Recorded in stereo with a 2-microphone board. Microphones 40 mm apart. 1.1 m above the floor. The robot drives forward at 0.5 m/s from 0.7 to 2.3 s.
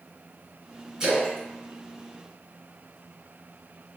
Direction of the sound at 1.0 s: 20° right (ahead or behind).